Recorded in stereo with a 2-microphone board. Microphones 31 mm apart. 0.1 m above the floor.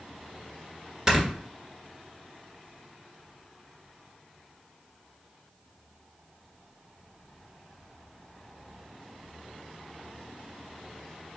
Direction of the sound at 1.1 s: 20° right (ahead or behind).